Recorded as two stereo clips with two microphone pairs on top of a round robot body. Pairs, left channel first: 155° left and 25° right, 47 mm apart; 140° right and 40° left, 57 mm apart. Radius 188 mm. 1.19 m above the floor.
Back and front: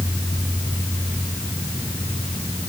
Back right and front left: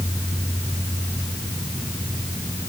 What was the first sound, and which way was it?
Only background noise.